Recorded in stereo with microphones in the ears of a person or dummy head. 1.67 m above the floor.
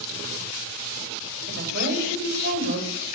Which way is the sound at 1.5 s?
50° right (ahead or behind).